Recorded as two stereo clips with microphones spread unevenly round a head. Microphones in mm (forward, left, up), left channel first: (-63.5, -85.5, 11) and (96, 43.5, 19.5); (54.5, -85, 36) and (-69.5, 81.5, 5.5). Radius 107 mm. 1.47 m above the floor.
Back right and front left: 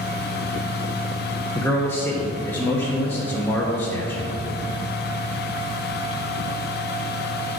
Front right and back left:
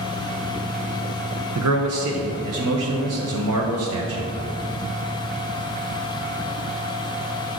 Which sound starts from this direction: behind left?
A man speaking, at 1.6 s.